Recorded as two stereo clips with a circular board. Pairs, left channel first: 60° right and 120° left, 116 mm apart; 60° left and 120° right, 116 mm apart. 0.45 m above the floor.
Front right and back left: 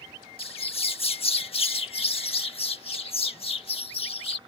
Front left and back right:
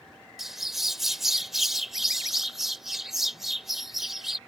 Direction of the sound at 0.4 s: 35° right.